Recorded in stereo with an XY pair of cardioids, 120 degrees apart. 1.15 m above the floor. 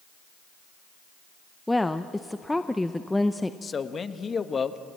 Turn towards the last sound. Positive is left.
turn(degrees=30)